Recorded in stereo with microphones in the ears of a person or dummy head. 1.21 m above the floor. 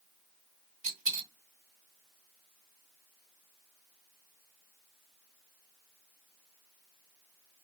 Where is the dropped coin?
40° right (ahead or behind), 1.5 m.